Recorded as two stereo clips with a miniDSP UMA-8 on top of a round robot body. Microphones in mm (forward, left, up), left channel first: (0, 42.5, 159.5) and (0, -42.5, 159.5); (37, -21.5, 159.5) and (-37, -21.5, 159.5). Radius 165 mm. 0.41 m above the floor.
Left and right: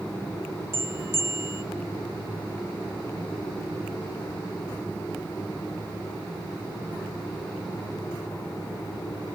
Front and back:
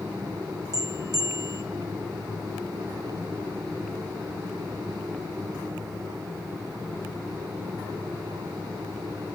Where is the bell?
150° right, 1.4 m.